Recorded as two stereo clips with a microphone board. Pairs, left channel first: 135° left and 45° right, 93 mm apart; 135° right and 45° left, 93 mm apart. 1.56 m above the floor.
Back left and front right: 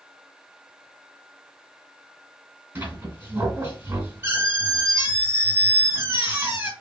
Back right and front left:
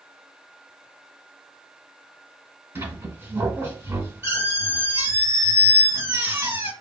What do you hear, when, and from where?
2.8 s a squeak: straight ahead, 1.8 m